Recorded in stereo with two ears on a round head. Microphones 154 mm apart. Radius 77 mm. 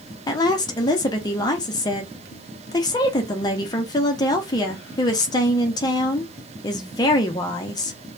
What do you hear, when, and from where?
0.3 s a woman speaking: 25° left (ahead or behind), 0.6 m